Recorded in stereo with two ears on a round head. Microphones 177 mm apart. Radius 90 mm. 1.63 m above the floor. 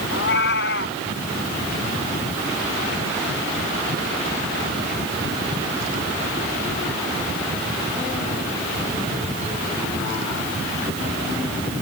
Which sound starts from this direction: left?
A cat meowing, at 0.1 s.